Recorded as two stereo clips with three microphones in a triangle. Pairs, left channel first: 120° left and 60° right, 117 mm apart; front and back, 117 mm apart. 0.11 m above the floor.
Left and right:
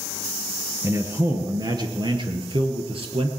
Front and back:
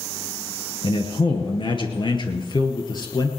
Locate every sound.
0.8 s a man speaking: 5° right, 2.0 m; by 3.3 s 45° right, 2.5 m